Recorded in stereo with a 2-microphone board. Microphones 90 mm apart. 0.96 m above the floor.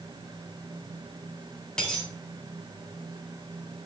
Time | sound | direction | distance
1.8 | a dropped coin | 10° left (ahead or behind) | 4 m